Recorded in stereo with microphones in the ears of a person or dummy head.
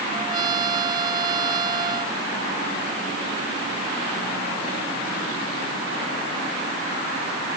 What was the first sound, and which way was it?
A trumpet, 25° right (ahead or behind).